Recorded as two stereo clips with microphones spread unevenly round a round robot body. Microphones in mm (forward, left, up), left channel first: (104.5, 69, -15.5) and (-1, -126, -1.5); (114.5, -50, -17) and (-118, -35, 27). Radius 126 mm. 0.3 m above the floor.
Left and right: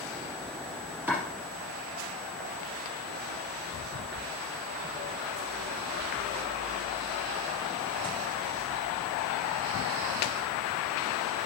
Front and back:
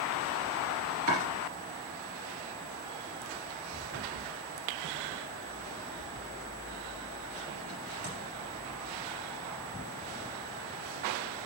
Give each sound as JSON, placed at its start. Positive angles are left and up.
{"t": 1.1, "sound": "chopping", "azimuth_deg": 160, "distance_m": 3.0}